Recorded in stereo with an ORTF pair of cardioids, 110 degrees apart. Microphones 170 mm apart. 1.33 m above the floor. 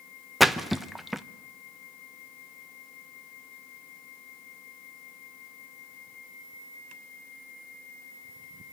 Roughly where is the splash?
Ahead.